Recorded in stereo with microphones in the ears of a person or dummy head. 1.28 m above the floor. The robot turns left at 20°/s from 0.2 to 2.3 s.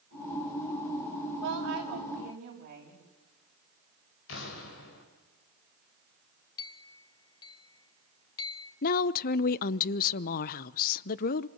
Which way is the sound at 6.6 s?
25° left (ahead or behind).